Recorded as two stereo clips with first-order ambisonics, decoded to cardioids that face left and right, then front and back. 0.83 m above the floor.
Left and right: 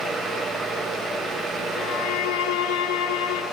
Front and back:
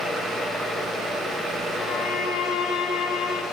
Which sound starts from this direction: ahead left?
A violin, at 1.8 s.